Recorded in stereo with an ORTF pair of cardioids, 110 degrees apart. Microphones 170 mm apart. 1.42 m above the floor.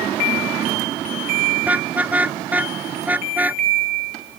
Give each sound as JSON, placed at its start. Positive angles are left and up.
{"t": 1.6, "sound": "a car horn", "azimuth_deg": -10}